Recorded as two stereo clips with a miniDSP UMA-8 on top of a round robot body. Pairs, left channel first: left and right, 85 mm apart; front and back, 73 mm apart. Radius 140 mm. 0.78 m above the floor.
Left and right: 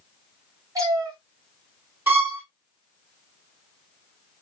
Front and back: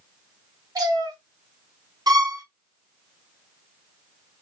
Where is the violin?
155° right, 2.5 m.